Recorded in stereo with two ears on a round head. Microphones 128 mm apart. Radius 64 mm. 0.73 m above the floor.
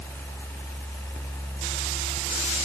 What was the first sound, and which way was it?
Only background noise.